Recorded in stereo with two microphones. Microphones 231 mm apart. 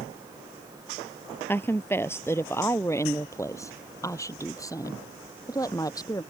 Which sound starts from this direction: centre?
A woman speaking, at 1.5 s.